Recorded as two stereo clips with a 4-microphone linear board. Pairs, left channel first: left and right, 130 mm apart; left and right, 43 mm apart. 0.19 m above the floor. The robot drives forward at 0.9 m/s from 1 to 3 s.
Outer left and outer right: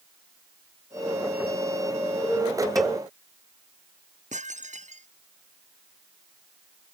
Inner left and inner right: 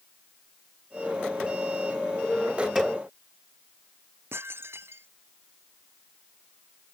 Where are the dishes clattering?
65° right (ahead or behind).